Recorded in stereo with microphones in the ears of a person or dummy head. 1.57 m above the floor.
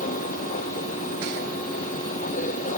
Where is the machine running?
40° left (ahead or behind).